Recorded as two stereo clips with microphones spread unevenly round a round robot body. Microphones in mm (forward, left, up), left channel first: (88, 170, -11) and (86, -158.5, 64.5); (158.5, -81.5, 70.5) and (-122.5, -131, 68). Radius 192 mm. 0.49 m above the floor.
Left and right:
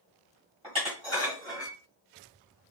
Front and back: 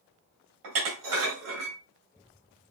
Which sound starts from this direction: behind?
Dishes clattering, at 0.6 s.